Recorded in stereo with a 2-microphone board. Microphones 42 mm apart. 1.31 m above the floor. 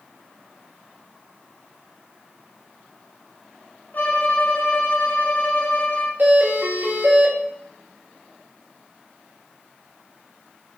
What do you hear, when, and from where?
3.9 s a violin: 50° left (ahead or behind), 1.9 m
6.2 s a doorbell: 60° right (ahead or behind), 3 m